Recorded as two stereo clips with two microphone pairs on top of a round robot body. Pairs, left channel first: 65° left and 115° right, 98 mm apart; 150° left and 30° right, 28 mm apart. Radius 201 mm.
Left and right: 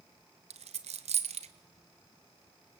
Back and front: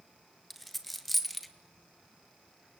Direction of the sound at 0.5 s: 120° right.